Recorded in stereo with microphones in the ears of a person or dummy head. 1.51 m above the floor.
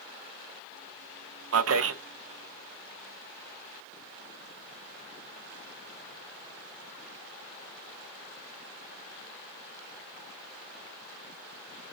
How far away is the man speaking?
About 0.9 m.